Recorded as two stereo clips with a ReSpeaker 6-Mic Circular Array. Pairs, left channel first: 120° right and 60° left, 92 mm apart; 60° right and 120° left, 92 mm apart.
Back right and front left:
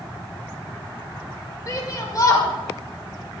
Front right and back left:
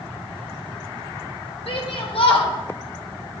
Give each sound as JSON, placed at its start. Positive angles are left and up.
{"t": 1.7, "sound": "a shout", "azimuth_deg": -70, "distance_m": 6.5}